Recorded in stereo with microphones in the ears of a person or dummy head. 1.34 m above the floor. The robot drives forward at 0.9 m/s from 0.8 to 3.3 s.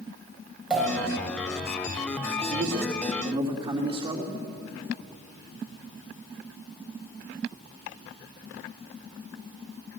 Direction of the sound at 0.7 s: 5° right (ahead or behind).